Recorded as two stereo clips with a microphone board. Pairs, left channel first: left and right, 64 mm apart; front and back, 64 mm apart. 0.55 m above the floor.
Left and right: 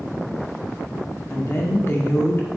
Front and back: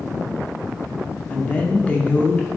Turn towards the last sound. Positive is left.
turn(degrees=60)